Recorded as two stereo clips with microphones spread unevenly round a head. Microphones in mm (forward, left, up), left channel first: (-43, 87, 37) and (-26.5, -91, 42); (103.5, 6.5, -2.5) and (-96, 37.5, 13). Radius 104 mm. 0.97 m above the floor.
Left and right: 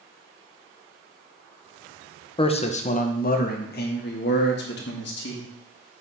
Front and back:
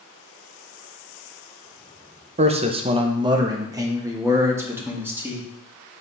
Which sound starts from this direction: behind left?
A man speaking, at 2.4 s.